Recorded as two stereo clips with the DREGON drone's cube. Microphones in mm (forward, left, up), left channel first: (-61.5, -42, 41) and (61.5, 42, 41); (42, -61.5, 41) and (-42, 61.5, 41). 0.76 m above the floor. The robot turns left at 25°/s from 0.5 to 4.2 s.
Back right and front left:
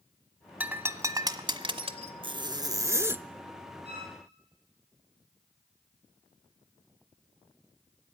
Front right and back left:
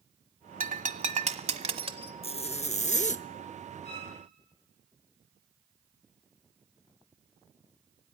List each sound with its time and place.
0.6 s breaking glass: 110° left, 1.2 m; by 2.1 s 75° left, 1.2 m
2.2 s a zipper: 15° right, 0.6 m; by 3.2 s 40° right, 0.6 m
3.9 s a violin: 10° right, 9 m; by 4.1 s 20° right, 9 m